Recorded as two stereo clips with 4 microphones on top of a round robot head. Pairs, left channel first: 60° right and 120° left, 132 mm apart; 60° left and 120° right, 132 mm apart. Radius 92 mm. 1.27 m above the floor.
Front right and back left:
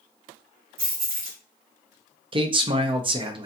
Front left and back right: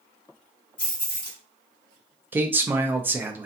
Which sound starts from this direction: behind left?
Keys jangling, at 0.8 s.